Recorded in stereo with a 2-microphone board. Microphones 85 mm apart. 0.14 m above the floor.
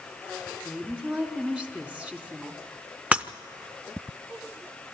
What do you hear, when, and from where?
0.7 s a woman speaking: 15° right (ahead or behind), 1.5 m
3.1 s breaking glass: 15° right (ahead or behind), 0.5 m